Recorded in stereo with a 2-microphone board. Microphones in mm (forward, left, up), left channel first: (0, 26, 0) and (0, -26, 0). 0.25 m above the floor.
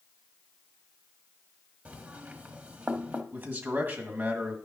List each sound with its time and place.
1.9 s knocking: 30° right (ahead or behind), 1.1 m
3.3 s a man speaking: 40° right (ahead or behind), 1.8 m